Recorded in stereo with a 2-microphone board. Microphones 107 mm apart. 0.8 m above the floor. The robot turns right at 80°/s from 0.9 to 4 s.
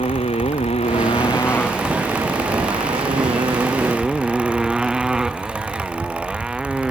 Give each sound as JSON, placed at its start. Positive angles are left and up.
{"t": 0.0, "sound": "a motorcycle", "azimuth_deg": 105}